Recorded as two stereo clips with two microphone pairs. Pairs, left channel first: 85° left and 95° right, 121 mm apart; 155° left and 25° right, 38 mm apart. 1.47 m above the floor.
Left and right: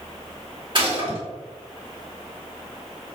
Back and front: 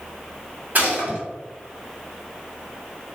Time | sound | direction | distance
0.8 | a gunshot | 55° right | 1.2 m